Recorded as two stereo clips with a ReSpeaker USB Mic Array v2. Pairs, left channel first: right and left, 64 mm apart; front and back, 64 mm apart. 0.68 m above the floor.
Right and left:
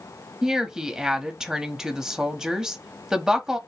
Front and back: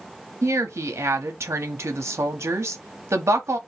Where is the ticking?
No ticking in this recording.